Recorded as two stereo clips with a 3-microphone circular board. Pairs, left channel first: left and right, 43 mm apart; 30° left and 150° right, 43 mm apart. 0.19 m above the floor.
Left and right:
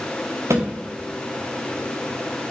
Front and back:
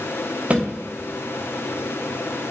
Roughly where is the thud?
Right.